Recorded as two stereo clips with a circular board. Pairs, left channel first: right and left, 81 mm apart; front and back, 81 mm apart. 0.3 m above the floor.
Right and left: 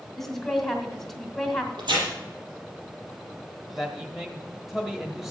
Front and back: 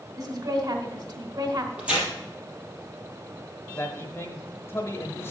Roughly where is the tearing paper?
Left.